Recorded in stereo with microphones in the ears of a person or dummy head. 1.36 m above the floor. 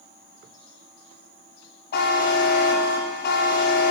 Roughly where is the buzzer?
Left.